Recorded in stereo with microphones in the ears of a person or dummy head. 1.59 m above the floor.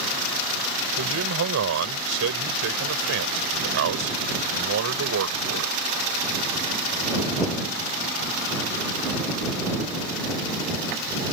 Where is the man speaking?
75° right (ahead or behind).